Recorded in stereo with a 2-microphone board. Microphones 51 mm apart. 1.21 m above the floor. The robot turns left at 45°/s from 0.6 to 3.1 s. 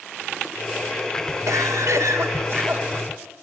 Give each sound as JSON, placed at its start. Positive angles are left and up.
{"t": 1.5, "sound": "a cough", "azimuth_deg": -80, "distance_m": 3.0}